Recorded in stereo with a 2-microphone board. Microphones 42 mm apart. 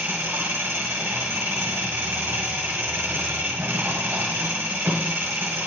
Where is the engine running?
75° right (ahead or behind), 1.7 m.